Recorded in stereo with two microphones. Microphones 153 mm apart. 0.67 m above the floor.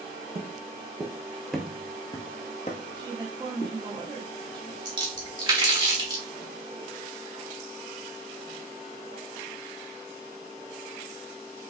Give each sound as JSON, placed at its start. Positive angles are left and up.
{"t": 0.3, "sound": "footsteps", "side_deg": -45, "distance_m": 1.0}
{"t": 2.9, "sound": "a woman speaking", "side_deg": -25, "distance_m": 1.1}
{"t": 4.8, "sound": "a splash", "side_deg": -30, "distance_m": 1.6}